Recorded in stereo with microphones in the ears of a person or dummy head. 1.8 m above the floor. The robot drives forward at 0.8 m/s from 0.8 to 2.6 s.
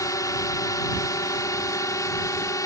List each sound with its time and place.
0.0 s a drone: 15° left (ahead or behind)